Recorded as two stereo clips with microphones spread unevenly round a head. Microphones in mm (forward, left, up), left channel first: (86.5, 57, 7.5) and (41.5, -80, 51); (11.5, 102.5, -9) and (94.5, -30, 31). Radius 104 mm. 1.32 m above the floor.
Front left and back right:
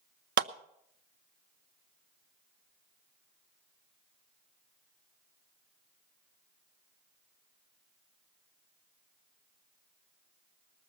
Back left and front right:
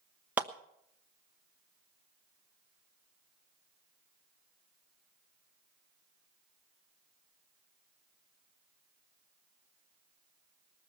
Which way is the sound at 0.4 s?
140° right.